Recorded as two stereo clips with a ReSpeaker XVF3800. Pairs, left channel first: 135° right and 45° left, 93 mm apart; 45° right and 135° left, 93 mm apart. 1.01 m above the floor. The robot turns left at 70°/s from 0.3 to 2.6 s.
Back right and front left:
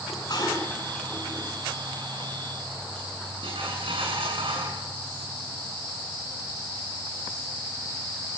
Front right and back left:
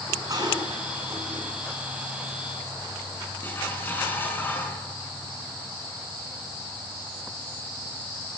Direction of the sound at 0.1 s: 175° right.